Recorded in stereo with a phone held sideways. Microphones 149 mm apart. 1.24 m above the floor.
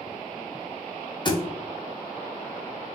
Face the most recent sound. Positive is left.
turn(degrees=30)  # may be behind; listen again after turning